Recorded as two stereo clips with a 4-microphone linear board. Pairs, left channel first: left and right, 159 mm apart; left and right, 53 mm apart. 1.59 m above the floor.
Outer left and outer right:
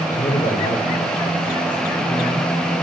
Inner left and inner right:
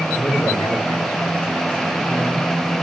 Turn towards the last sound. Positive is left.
turn(degrees=45)  # may be behind; listen again after turning